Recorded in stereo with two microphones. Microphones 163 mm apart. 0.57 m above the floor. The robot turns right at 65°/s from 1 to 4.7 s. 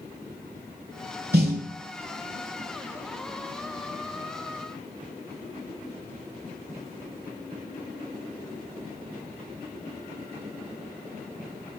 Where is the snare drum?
80° right, 1.0 m; by 1.6 s 70° right (ahead or behind), 1.0 m.